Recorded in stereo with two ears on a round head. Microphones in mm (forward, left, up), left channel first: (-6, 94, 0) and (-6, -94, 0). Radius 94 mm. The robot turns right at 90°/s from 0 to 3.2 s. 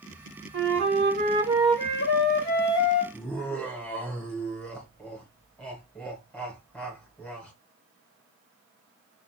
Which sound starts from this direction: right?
A flute, at 0.5 s.